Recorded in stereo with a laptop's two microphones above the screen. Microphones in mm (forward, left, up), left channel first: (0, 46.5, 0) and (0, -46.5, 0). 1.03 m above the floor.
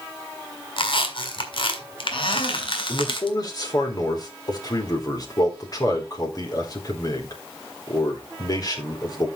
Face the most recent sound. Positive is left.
turn(degrees=45)  # may be behind; listen again after turning